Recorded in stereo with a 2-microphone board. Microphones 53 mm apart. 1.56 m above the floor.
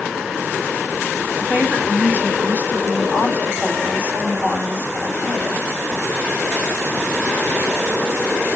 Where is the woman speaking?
30° right (ahead or behind), 7.5 m.